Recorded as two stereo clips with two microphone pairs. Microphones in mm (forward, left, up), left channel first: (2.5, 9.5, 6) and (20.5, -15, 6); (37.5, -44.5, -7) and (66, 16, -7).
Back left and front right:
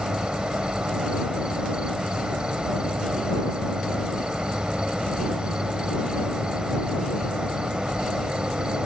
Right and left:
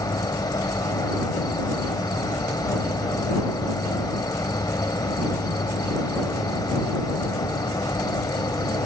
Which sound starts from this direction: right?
An insect, at 0.0 s.